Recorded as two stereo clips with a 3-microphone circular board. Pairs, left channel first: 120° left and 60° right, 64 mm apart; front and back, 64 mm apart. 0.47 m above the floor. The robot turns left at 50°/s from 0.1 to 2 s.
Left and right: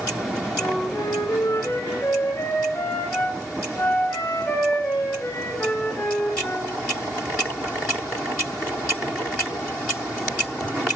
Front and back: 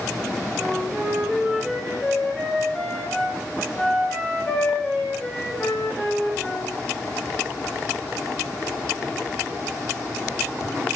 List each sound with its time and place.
0.6 s a flute: 145° left, 3 m; by 6.7 s 75° left, 3 m